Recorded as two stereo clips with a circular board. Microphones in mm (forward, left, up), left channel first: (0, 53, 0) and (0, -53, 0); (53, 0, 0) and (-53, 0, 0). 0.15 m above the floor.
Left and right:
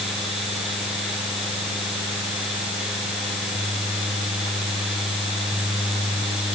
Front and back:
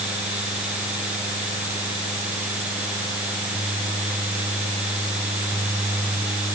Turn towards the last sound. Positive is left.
No sound to turn to.